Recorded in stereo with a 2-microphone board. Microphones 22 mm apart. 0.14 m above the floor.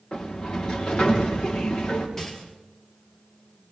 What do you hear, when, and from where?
0.1 s a sliding door: 40° left (ahead or behind), 3.5 m
2.2 s a rattle: 20° left (ahead or behind), 3 m